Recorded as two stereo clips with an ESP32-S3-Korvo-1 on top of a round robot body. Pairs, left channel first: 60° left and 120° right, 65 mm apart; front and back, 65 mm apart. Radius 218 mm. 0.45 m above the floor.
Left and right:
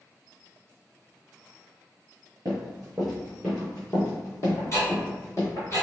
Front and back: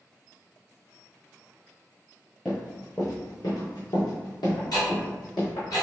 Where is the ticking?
15° left, 1.8 m.